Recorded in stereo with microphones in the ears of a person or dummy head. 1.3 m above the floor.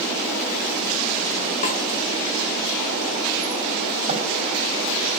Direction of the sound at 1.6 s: 35° left (ahead or behind).